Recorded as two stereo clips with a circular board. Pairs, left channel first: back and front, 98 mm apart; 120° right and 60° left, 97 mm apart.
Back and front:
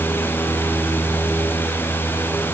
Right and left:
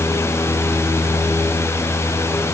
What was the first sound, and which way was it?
Only background noise.